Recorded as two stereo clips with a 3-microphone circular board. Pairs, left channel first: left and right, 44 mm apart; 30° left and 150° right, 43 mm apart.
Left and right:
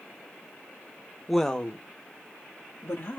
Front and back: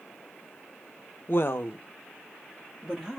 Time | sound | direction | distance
1.3 | a woman speaking | straight ahead | 0.8 m